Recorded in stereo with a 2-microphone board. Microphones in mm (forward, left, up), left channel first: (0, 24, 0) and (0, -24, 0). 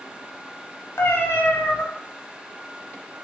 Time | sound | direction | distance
1.0 | a cat meowing | 60° left (ahead or behind) | 0.6 m